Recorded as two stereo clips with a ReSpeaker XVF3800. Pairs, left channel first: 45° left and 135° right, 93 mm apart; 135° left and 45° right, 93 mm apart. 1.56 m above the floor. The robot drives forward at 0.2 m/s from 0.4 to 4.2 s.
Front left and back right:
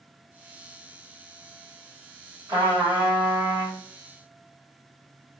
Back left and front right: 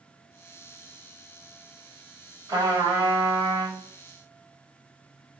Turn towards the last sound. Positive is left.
turn(degrees=-105)